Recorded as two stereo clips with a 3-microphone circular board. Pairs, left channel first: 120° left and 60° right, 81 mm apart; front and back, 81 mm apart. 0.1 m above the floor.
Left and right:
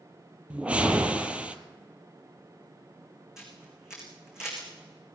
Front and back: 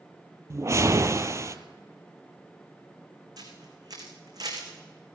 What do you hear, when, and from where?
0.5 s a whoosh: 135° right, 0.7 m
3.4 s a camera shutter: 145° right, 4 m